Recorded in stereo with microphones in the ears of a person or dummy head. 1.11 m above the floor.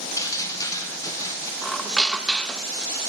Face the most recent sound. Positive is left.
turn(degrees=5)  # may be behind; listen again after turning